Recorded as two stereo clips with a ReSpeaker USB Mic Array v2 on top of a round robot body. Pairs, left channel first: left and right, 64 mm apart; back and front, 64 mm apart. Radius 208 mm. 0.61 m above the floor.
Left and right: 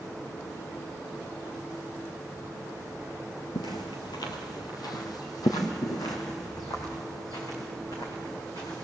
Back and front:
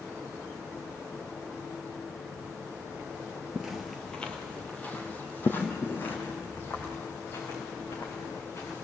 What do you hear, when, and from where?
3.5 s footsteps: 80° left, 0.8 m; by 8.8 s 125° left, 5 m